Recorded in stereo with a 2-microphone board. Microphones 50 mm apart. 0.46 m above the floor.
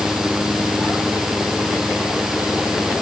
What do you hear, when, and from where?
Only background noise.